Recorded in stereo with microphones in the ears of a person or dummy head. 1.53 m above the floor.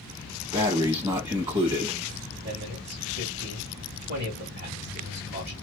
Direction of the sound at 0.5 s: 35° right (ahead or behind).